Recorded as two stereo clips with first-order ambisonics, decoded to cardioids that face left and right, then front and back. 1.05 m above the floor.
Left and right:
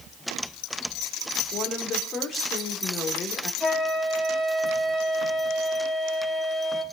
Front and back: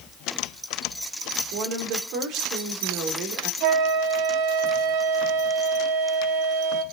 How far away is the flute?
About 4 m.